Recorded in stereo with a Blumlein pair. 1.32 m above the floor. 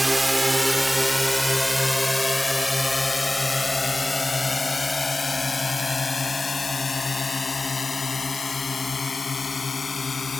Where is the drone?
5° right; by 10.4 s 15° left.